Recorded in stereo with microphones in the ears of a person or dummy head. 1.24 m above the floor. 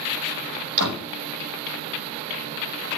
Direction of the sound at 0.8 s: 65° right (ahead or behind).